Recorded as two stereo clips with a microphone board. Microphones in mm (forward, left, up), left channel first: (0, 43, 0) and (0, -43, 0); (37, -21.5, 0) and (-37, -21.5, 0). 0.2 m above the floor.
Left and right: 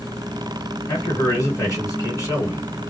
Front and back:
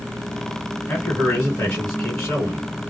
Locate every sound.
0.9 s a man speaking: 65° left, 1.7 m